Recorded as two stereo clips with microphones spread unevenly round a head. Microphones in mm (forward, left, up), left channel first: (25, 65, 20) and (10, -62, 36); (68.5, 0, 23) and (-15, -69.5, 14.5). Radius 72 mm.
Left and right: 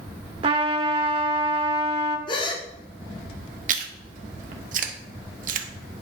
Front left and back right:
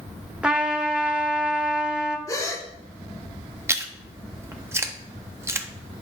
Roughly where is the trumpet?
Ahead right.